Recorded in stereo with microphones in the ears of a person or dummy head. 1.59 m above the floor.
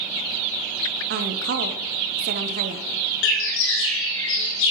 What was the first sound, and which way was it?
A woman speaking, 50° right (ahead or behind).